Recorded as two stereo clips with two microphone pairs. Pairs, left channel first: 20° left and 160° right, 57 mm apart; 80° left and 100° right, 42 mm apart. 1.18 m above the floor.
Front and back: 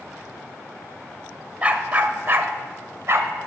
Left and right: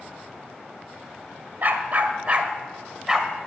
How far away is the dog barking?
About 1.3 m.